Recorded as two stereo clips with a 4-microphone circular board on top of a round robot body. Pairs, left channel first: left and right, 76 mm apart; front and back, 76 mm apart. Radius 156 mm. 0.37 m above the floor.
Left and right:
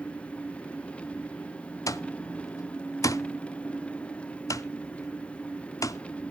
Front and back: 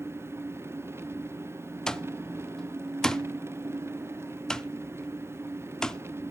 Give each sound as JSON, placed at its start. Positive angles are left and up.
{"t": 0.0, "sound": "an engine running", "azimuth_deg": 155, "distance_m": 0.8}
{"t": 1.9, "sound": "an alarm clock", "azimuth_deg": 80, "distance_m": 0.6}